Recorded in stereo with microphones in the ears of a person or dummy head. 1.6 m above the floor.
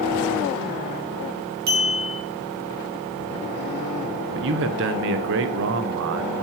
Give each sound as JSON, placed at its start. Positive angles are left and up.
{"t": 1.7, "sound": "a clink", "side_deg": -55, "distance_m": 2.5}
{"t": 4.3, "sound": "a man speaking", "side_deg": -70, "distance_m": 0.9}